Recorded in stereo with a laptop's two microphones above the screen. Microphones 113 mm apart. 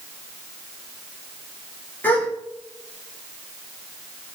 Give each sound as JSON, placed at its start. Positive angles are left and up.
{"t": 2.0, "sound": "a gasp", "side_deg": 15, "distance_m": 0.5}